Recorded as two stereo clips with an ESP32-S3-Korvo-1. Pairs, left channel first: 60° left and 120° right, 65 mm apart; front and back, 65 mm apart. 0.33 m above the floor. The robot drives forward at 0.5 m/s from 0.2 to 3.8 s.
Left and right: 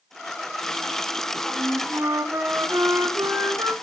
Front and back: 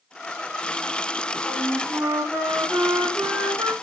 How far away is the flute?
About 3 m.